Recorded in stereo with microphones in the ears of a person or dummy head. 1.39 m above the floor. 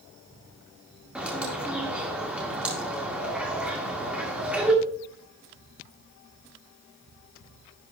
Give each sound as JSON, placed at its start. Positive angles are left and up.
{"t": 1.1, "sound": "a bird", "side_deg": -5, "distance_m": 1.8}